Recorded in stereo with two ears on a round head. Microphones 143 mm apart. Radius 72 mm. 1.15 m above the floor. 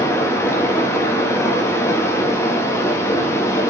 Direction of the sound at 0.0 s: 15° left (ahead or behind).